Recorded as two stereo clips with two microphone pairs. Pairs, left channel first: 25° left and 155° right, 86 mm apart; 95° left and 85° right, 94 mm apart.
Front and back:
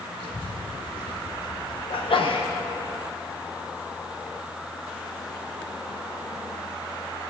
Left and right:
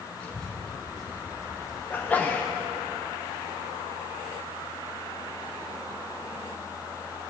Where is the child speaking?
15° left, 2.5 m; by 2.9 s 10° right, 4 m.